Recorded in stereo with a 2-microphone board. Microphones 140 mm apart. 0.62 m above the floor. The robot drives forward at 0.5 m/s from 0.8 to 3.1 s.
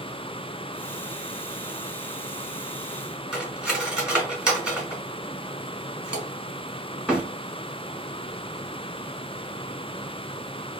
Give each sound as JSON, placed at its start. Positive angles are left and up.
{"t": 3.3, "sound": "cutlery clinking", "side_deg": -5, "distance_m": 1.7}